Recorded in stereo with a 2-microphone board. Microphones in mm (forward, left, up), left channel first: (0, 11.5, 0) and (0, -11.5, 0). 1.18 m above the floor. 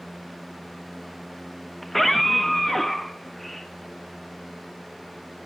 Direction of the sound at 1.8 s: 10° left (ahead or behind).